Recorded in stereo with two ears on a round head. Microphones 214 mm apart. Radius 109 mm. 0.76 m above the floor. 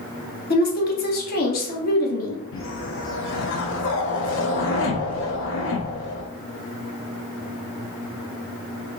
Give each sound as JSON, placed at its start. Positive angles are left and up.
{"t": 0.5, "sound": "a woman speaking", "side_deg": 40, "distance_m": 0.9}
{"t": 2.5, "sound": "a whoosh", "side_deg": 55, "distance_m": 0.7}